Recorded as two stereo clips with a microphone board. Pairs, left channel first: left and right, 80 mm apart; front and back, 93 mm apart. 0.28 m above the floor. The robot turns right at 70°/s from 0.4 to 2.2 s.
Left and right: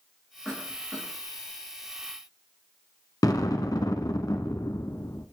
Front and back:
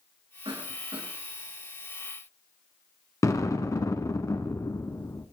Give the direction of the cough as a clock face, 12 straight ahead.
6 o'clock.